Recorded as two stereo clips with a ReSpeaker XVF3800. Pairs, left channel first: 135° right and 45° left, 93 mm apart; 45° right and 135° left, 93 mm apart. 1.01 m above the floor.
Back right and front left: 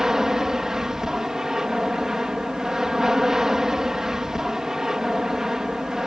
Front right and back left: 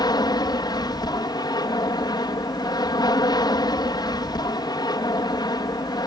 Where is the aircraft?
35° right.